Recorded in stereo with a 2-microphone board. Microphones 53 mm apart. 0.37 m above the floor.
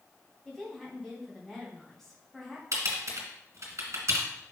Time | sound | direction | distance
0.5 | a woman speaking | 10° left (ahead or behind) | 2.5 m
2.7 | typing on a keyboard | 60° right (ahead or behind) | 1.9 m